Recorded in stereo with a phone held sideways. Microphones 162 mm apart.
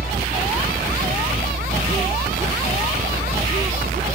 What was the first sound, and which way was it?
A helicopter, 75° right (ahead or behind).